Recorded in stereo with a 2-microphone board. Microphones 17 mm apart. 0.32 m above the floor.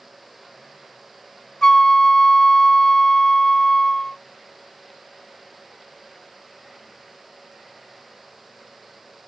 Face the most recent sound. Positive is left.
turn(degrees=35)  # may be behind; listen again after turning